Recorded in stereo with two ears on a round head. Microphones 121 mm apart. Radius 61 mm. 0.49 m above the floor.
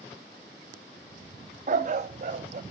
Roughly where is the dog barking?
Right.